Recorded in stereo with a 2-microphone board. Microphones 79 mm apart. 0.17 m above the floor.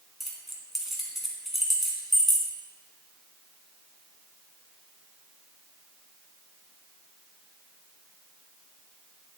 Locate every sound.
0.2 s keys jangling: centre (ahead or behind), 1.3 m